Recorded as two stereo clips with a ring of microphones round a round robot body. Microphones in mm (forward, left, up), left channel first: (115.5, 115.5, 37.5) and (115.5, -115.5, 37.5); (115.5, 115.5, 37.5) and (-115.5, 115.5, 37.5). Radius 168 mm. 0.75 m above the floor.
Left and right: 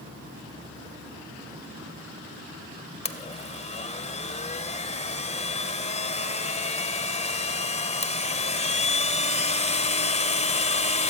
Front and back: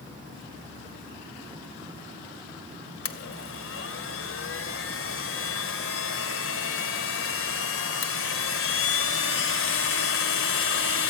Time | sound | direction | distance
3.0 | a blender | 25° left | 2.5 m